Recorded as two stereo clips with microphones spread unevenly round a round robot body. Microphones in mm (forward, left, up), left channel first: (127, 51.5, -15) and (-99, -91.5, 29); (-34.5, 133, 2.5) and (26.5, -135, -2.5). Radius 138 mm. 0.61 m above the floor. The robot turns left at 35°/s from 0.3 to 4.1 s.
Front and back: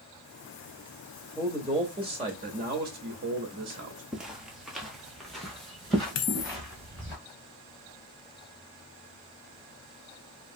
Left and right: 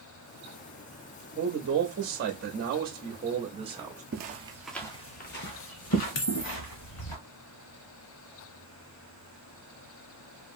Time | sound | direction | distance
1.4 | a man speaking | 50° right | 0.7 m
4.1 | footsteps | 75° right | 0.6 m
6.2 | a dropped coin | 65° left | 0.6 m